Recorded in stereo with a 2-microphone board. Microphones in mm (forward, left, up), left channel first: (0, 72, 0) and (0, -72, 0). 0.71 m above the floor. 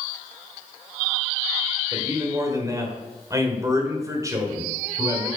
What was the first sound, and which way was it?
A man speaking, 25° right (ahead or behind).